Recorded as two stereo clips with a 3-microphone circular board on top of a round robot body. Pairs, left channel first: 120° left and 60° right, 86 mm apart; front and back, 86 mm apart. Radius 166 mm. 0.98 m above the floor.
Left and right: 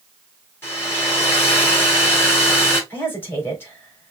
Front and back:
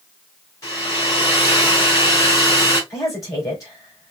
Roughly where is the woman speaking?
Ahead left.